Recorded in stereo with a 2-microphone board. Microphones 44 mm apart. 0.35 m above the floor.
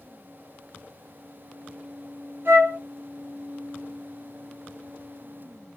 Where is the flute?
55° right (ahead or behind), 0.9 m.